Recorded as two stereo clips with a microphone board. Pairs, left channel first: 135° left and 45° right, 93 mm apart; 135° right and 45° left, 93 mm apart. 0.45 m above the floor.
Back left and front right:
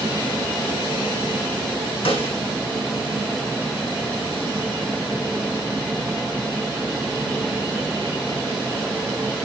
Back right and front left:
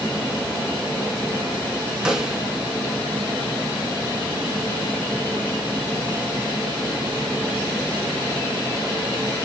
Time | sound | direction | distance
2.0 | a snare drum | 125° left | 2.5 m